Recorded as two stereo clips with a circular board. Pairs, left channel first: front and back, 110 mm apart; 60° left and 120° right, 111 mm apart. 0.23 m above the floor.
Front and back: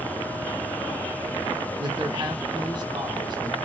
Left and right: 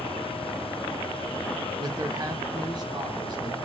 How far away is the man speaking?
About 1.4 m.